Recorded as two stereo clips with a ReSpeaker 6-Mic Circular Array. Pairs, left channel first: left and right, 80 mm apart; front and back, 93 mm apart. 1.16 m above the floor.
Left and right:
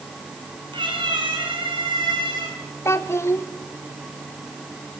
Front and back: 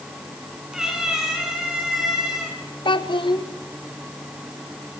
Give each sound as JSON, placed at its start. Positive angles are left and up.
{"t": 0.7, "sound": "a cat meowing", "azimuth_deg": -95, "distance_m": 7.0}
{"t": 2.9, "sound": "a child speaking", "azimuth_deg": 30, "distance_m": 1.7}